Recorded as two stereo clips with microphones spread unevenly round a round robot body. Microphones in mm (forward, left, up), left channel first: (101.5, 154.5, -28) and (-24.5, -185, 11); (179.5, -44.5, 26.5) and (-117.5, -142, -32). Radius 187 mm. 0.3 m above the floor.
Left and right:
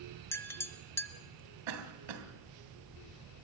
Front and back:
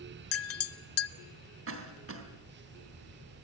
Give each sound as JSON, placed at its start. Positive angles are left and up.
{"t": 0.3, "sound": "a clink", "azimuth_deg": 10, "distance_m": 0.5}
{"t": 1.7, "sound": "a cough", "azimuth_deg": -125, "distance_m": 3.0}